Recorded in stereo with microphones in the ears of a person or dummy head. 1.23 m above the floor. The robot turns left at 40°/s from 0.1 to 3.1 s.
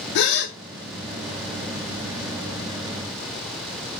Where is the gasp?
60° left (ahead or behind), 0.6 m; by 0.6 s 65° left (ahead or behind), 0.6 m.